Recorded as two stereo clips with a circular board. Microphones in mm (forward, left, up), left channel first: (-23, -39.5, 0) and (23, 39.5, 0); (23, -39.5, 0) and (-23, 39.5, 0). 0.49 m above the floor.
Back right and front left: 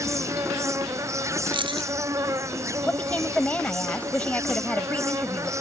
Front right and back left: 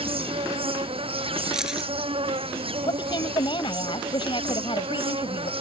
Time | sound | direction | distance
0.0 | an insect | 115° left | ?
1.5 | keys jangling | 35° left | ?
2.9 | a woman speaking | 45° right | ?